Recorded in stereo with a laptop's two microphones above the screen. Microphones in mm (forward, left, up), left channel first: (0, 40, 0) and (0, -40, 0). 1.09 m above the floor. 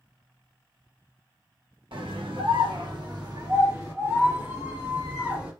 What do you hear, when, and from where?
1.9 s a scream: 80° right, 1.0 m; by 5.5 s 20° right (ahead or behind), 2 m